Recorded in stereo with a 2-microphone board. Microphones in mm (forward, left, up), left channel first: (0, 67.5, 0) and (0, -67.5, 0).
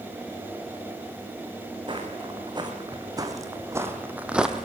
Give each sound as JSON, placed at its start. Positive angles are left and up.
{"t": 1.9, "sound": "footsteps", "side_deg": -35, "distance_m": 4.5}